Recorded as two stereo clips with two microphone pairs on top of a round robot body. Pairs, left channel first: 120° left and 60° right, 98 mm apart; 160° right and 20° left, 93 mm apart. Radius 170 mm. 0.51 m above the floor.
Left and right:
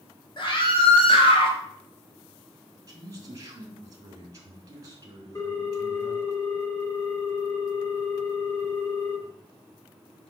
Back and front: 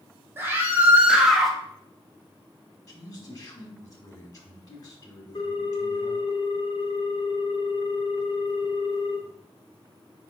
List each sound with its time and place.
0.4 s a scream: 90° left, 1.5 m; by 1.6 s 120° left, 1.2 m
2.9 s a man speaking: 115° right, 2.5 m
5.3 s a ringtone: 175° left, 2 m